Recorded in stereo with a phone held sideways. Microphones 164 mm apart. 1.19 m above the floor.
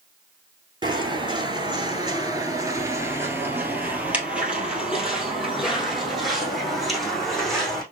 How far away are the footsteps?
About 1.5 m.